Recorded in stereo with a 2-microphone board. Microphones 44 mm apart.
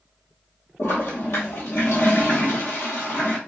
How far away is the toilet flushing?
About 1.1 m.